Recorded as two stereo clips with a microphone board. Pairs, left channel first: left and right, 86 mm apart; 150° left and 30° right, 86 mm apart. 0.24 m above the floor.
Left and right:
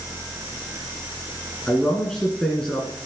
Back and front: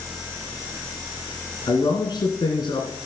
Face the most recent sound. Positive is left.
turn(degrees=170)